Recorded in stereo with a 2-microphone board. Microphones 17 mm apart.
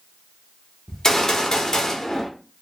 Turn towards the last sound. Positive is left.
turn(degrees=35)  # may be behind; listen again after turning